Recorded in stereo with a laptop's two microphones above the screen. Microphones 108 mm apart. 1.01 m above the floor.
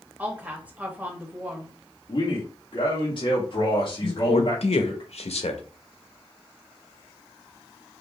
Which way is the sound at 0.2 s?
15° right (ahead or behind).